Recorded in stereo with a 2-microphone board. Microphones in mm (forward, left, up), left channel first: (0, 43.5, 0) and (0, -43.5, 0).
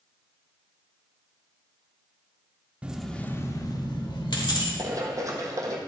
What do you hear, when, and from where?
2.8 s keys jangling: 15° right (ahead or behind), 0.6 m; by 4.7 s 70° left (ahead or behind), 1.4 m
4.8 s running footsteps: 40° right (ahead or behind), 1.5 m